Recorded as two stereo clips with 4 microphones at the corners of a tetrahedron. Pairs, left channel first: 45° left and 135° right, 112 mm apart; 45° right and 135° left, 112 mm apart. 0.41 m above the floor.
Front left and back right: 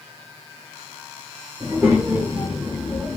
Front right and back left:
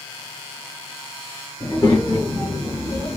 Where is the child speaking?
75° right, 1.3 m; by 3.2 s 55° right, 1.9 m.